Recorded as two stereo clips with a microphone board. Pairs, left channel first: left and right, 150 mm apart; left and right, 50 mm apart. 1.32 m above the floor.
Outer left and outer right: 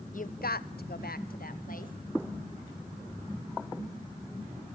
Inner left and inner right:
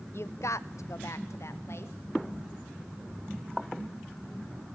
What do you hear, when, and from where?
0.1 s a woman speaking: 55° left (ahead or behind), 0.8 m; by 1.9 s 60° left (ahead or behind), 1.7 m